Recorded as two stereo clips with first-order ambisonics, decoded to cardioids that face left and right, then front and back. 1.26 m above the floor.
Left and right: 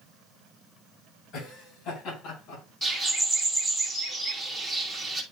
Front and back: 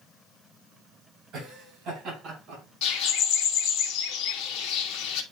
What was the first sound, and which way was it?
Laughter, 125° left.